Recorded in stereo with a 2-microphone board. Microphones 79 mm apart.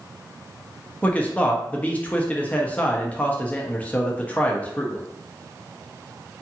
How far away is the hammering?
No hammering in this recording.